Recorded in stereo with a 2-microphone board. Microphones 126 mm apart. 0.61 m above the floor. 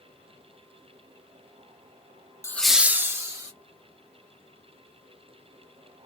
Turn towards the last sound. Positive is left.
turn(degrees=-25)  # may be behind; listen again after turning